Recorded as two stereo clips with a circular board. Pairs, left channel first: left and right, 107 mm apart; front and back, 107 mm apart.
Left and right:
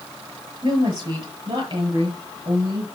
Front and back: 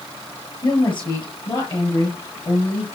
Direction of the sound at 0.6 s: 40° right.